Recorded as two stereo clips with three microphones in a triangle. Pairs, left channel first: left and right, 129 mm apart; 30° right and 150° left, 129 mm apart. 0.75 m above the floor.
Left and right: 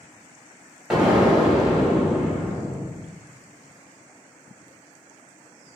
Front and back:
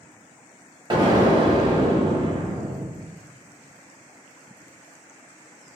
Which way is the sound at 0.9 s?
170° right.